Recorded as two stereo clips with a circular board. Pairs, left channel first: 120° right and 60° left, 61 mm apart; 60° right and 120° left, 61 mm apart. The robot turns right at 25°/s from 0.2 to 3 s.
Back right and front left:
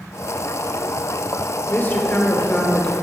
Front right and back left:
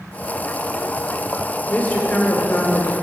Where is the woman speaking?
105° right, 1.0 m; by 2.9 s 75° right, 1.0 m.